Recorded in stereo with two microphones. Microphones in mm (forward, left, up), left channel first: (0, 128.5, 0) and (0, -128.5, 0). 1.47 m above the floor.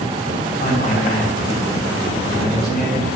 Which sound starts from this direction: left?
A man speaking, at 0.6 s.